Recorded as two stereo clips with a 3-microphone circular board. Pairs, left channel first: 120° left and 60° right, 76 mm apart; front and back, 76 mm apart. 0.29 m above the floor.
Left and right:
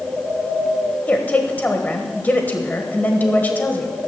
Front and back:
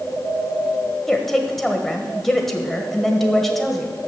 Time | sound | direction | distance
1.1 | a woman speaking | 80° left | 1.4 m